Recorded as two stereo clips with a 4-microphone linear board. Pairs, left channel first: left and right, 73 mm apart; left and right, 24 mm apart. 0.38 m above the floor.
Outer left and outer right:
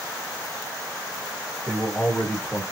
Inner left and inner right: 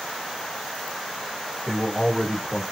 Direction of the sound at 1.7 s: 15° left (ahead or behind).